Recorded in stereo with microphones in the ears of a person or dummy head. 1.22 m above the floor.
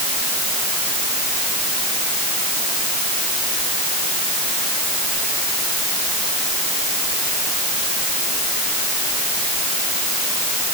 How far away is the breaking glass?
I don't hear breaking glass.